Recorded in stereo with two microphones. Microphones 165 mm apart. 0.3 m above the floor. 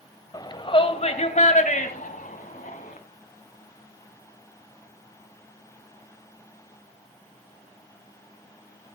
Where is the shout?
25° left (ahead or behind), 1.8 m; by 3.0 s 60° left (ahead or behind), 3.5 m.